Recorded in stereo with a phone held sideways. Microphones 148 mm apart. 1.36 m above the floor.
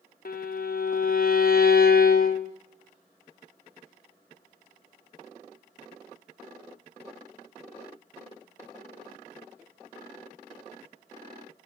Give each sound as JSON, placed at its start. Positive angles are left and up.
{"t": 0.2, "sound": "a violin", "side_deg": 65, "distance_m": 0.5}